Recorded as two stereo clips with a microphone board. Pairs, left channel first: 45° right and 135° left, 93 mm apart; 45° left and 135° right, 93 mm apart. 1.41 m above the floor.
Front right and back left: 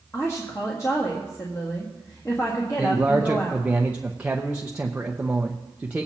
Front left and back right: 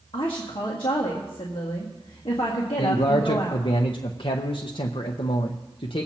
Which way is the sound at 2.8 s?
60° left.